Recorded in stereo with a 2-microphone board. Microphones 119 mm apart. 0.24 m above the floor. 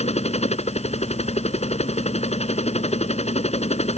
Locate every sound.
0.0 s a helicopter: 60° left (ahead or behind)